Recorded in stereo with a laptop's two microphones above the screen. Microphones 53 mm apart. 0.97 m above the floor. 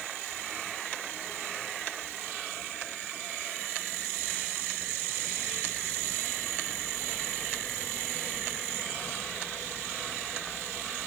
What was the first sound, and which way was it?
Only background noise.